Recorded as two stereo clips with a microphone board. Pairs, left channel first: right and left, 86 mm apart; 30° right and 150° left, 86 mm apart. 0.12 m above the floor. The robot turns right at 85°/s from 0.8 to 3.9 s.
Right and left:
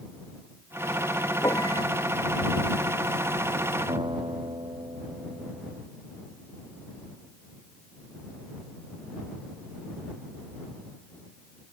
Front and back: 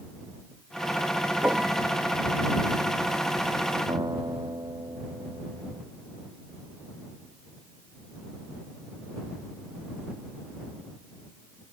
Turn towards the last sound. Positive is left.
turn(degrees=110)